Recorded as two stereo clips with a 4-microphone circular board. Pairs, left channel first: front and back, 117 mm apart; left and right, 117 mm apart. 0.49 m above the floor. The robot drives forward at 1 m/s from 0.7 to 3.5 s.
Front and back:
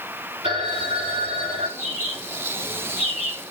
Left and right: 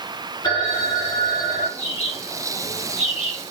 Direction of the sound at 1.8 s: 110° left.